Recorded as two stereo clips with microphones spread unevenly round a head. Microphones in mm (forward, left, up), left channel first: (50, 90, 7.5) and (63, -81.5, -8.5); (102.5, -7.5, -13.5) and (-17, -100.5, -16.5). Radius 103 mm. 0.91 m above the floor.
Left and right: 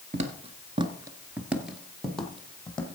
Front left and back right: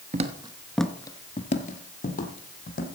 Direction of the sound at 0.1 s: 135° right.